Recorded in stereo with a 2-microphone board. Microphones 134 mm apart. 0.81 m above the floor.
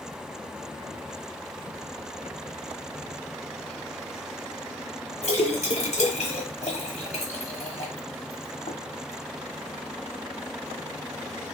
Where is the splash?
55° left (ahead or behind), 0.9 m.